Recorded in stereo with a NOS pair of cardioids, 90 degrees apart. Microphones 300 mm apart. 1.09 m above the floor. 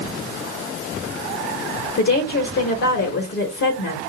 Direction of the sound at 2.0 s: 55° left.